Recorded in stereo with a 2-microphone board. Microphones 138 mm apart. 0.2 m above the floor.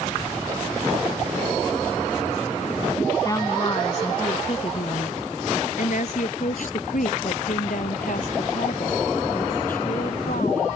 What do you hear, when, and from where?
3.2 s a woman speaking: 25° left (ahead or behind); by 10.8 s 80° left